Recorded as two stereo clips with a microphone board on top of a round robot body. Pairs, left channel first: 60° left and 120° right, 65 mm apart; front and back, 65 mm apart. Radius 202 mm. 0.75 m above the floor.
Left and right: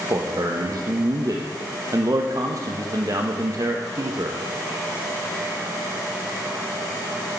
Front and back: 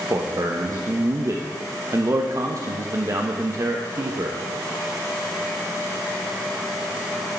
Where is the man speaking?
145° right, 1.4 m.